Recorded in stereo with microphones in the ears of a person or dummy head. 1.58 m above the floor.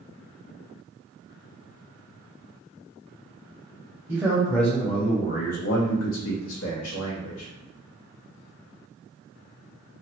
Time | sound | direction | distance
4.1 | a man speaking | 10° right (ahead or behind) | 0.8 m